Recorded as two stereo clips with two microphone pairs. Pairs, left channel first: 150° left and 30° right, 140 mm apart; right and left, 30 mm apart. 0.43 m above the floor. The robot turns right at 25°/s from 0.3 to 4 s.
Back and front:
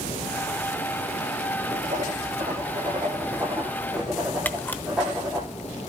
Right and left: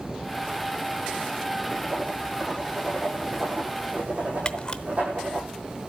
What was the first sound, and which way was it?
Writing, straight ahead.